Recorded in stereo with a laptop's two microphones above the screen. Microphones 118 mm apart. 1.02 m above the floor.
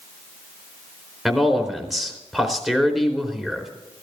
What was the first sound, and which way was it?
A man speaking, centre (ahead or behind).